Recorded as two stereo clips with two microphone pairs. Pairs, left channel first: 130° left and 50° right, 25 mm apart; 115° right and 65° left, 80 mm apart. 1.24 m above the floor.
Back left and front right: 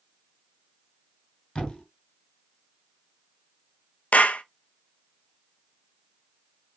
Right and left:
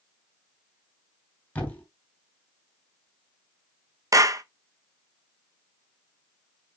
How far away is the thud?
About 3.5 m.